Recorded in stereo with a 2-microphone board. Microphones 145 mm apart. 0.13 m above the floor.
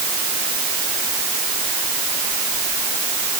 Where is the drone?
I don't hear a drone.